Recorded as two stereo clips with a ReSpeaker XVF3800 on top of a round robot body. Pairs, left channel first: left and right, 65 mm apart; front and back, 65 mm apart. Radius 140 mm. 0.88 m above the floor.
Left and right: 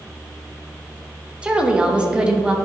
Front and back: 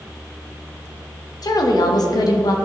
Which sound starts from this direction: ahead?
A woman speaking, at 1.4 s.